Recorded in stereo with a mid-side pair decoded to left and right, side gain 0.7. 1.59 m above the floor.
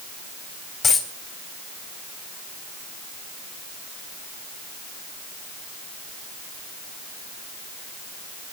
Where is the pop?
No pop in this recording.